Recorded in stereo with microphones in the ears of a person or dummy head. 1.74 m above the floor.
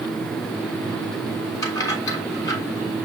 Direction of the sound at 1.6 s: 20° left (ahead or behind).